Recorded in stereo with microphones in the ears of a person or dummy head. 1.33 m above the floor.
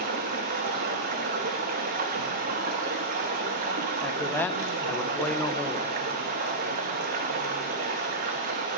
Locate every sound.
0.0 s running water: 40° right (ahead or behind), 1.0 m
4.0 s a man speaking: 10° left (ahead or behind), 0.7 m